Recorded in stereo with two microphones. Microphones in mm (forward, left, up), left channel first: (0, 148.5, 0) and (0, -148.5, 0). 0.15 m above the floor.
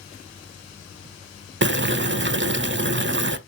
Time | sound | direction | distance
1.6 | boiling | 40° right (ahead or behind) | 0.6 m